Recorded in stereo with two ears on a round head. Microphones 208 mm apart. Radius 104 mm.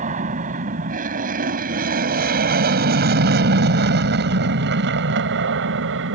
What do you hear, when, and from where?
0.0 s an aircraft: 35° right (ahead or behind); by 6.2 s 55° right (ahead or behind)